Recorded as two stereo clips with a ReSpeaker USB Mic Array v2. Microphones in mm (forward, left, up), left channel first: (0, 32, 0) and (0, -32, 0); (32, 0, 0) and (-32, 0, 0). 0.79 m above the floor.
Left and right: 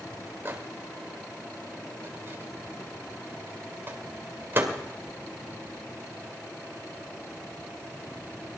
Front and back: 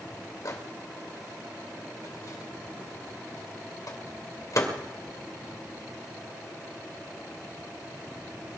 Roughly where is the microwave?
Ahead right.